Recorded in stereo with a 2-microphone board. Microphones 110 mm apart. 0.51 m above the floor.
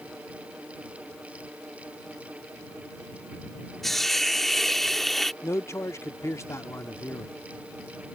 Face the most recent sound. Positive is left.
turn(degrees=25)  # may be behind; listen again after turning